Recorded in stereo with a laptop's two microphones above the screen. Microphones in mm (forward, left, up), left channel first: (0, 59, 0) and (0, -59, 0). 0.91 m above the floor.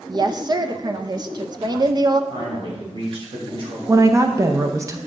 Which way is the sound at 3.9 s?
25° right (ahead or behind).